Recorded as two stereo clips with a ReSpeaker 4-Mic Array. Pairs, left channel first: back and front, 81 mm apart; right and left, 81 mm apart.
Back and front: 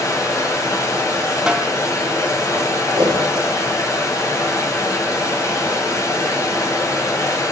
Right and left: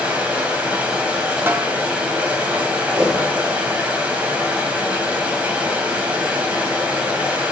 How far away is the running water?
About 1.7 m.